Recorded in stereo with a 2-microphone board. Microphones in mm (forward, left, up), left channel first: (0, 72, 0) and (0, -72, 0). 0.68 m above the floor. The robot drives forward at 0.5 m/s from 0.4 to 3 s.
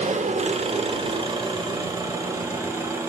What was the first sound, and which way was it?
An engine running, 50° right (ahead or behind).